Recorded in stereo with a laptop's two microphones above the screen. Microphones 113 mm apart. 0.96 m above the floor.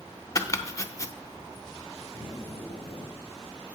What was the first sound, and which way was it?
Chopping, 25° left (ahead or behind).